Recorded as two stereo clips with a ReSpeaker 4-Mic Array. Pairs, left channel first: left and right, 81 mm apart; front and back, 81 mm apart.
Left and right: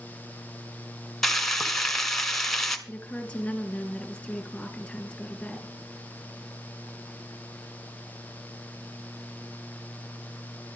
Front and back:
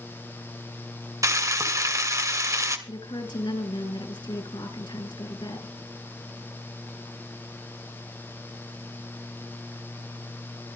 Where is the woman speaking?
10° left, 3.5 m.